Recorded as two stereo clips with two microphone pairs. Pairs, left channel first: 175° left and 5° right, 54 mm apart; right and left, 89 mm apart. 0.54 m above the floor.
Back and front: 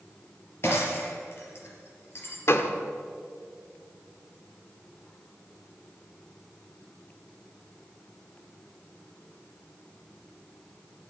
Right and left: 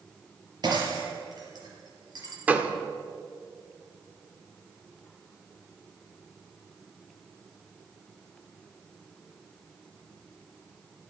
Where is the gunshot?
160° left, 1.2 m.